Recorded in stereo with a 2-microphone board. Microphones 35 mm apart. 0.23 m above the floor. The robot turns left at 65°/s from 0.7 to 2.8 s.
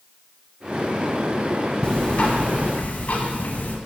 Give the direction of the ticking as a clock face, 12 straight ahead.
7 o'clock.